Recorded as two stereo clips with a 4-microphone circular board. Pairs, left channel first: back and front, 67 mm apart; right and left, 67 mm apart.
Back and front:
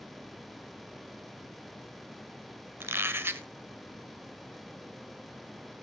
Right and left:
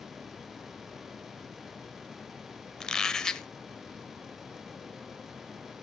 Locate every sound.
2.8 s a squeak: 15° right, 0.9 m